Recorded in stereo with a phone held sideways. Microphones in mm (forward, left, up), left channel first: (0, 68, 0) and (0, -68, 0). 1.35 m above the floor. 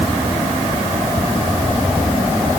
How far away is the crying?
I don't hear crying.